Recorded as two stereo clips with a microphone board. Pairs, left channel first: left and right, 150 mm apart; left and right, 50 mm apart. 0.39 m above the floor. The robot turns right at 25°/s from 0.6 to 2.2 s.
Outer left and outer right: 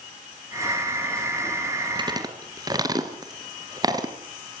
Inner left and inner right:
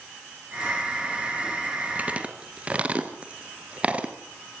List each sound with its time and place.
1.9 s chewing: 30° right (ahead or behind), 3 m; by 4.1 s 25° right (ahead or behind), 3 m